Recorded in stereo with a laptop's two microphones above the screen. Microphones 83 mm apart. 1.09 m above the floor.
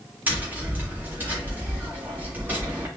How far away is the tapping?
About 2 m.